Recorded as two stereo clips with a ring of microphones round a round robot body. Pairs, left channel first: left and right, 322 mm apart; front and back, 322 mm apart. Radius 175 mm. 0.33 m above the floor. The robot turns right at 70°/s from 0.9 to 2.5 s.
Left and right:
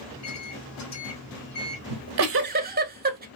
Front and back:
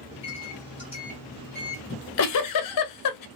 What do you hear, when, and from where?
0.1 s a microwave: 70° left, 1.8 m; by 1.8 s 135° left, 1.8 m
1.9 s a giggle: 65° right, 0.7 m; by 3.3 s 25° right, 0.7 m